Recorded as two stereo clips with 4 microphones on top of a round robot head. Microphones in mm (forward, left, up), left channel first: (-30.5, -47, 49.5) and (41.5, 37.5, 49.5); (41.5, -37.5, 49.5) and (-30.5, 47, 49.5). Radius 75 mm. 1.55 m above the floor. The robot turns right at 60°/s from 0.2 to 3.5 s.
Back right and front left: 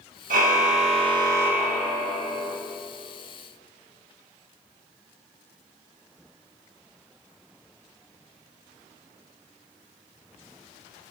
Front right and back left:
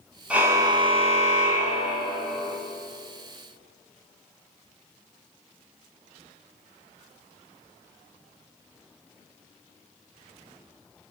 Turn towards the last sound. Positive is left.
turn(degrees=-120)